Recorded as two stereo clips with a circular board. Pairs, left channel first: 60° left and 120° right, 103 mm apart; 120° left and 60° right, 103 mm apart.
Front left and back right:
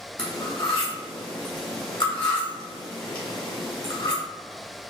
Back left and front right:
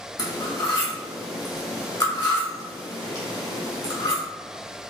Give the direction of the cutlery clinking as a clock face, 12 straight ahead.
9 o'clock.